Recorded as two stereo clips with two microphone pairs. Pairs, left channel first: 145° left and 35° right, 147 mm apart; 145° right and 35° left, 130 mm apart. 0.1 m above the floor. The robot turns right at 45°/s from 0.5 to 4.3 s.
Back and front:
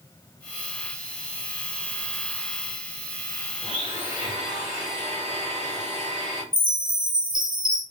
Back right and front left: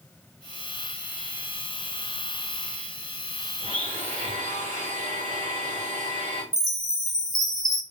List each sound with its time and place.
3.6 s a blender: 20° left, 3.5 m; by 6.4 s 50° left, 3.5 m
6.5 s a chime: 25° right, 1.6 m